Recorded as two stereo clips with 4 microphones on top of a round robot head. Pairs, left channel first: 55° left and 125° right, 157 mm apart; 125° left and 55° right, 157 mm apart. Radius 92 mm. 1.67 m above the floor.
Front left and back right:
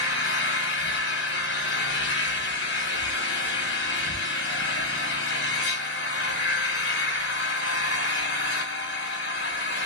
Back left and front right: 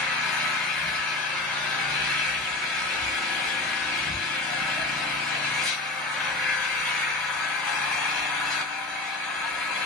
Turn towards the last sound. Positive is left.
turn(degrees=40)